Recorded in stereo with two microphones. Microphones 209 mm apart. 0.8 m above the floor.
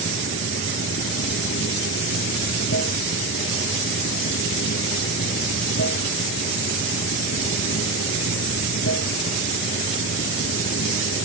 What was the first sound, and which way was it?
Running water, 80° left.